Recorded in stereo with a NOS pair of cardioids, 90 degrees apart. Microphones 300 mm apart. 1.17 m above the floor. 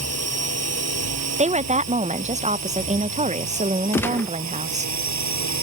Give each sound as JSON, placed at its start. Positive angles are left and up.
{"t": 0.0, "sound": "a drone", "azimuth_deg": -55}
{"t": 1.4, "sound": "a woman speaking", "azimuth_deg": -25}
{"t": 3.9, "sound": "a gunshot", "azimuth_deg": 5}